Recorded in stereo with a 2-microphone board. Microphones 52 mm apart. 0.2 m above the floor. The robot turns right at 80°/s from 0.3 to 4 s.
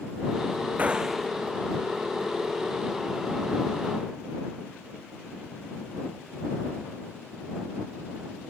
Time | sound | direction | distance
0.8 | a gunshot | 30° right | ?